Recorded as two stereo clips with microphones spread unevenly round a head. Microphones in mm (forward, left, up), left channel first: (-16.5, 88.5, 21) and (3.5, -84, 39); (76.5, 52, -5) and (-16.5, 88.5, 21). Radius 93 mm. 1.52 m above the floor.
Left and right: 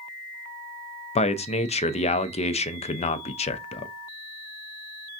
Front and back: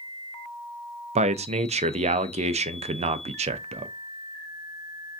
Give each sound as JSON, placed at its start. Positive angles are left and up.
{"t": 1.1, "sound": "a man speaking", "azimuth_deg": 150, "distance_m": 0.6}